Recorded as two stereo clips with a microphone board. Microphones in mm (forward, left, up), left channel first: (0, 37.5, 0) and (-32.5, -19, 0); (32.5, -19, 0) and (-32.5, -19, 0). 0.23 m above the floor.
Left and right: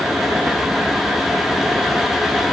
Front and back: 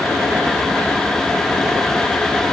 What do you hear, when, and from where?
Only background noise.